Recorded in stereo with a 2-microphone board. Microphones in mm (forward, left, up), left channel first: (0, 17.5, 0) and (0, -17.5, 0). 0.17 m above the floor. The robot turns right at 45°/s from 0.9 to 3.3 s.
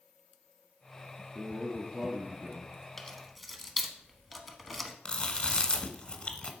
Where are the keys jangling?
10° left (ahead or behind), 0.8 m; by 5.0 s centre (ahead or behind), 0.8 m.